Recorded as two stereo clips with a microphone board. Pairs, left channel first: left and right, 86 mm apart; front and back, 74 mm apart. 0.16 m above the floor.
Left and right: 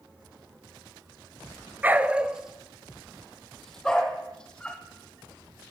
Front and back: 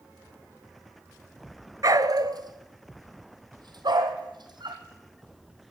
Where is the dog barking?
155° right, 0.8 m; by 4.8 s 170° left, 2.5 m.